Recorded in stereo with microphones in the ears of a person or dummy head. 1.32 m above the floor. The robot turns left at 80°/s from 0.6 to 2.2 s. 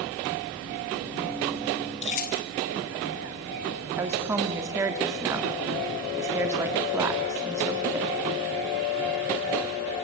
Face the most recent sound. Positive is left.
turn(degrees=-15)  # may be behind; listen again after turning